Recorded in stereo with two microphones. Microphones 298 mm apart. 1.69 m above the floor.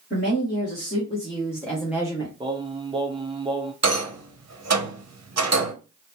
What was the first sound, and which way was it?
A woman speaking, 40° left (ahead or behind).